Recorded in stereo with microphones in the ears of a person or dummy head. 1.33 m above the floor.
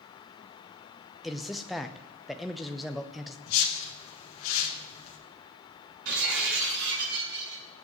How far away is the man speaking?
About 0.8 m.